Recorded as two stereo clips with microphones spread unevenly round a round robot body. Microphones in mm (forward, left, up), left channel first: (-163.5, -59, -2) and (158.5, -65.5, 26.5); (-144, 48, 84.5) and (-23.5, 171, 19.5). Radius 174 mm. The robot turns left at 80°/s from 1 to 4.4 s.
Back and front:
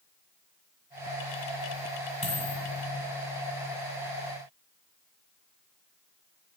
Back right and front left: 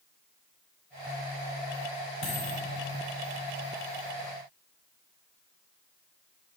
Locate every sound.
2.2 s a dropped coin: 105° right, 2.5 m; by 2.6 s 140° right, 2.5 m